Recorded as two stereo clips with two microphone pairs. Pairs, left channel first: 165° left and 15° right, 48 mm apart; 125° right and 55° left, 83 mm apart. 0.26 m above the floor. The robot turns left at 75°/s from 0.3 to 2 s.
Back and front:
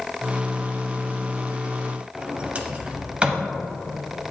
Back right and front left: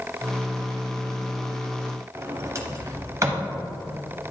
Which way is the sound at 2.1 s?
35° left.